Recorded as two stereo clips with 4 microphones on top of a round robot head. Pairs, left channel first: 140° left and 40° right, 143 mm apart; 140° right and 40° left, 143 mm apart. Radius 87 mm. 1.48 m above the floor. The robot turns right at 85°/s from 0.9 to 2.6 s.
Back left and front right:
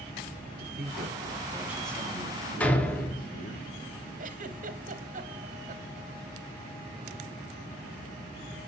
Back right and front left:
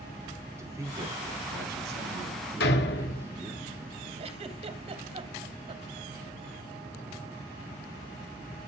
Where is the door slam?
140° right, 2.5 m.